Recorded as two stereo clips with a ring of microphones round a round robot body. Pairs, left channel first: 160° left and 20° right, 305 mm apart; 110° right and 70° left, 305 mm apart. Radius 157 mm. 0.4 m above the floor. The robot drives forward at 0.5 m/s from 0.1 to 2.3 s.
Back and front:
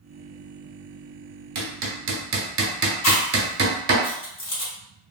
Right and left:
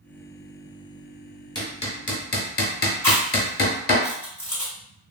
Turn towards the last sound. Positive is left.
turn(degrees=165)